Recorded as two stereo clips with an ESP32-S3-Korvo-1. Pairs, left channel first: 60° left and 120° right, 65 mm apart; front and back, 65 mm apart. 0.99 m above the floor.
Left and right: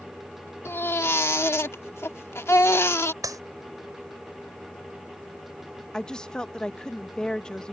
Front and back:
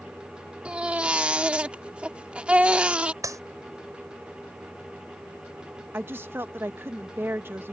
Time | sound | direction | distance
0.7 | a baby crying | 110° left | ?
3.2 | a clap | 150° right | ?
5.9 | a woman speaking | 135° left | ?